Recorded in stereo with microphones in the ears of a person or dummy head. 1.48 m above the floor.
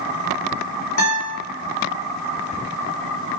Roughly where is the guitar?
Left.